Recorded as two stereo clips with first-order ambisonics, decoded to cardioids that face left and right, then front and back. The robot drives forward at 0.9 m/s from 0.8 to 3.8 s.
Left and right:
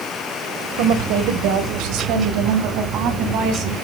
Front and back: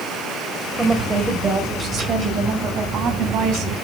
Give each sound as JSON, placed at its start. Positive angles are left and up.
{"t": 0.8, "sound": "a woman speaking", "azimuth_deg": -90, "distance_m": 2.5}